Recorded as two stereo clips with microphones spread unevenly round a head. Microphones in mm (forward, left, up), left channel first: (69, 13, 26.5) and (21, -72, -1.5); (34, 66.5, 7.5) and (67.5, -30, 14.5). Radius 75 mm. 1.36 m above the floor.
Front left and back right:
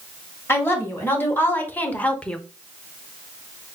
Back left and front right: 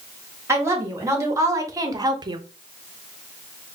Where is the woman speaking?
10° right, 2 m; by 2.4 s 25° right, 0.6 m.